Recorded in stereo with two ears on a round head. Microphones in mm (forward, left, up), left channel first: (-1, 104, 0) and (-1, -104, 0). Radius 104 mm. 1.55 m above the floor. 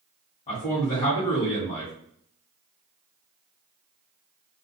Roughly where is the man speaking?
Left.